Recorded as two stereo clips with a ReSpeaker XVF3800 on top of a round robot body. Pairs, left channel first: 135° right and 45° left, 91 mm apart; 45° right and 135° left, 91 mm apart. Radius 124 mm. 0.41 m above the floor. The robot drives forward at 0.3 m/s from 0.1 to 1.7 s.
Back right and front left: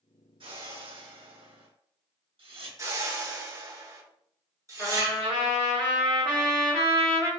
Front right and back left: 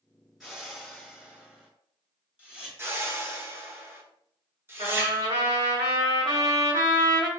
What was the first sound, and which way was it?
A whoosh, 45° left.